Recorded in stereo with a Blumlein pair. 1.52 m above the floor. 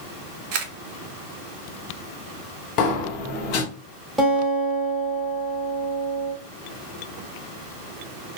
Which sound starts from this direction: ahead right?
A camera shutter, at 0.5 s.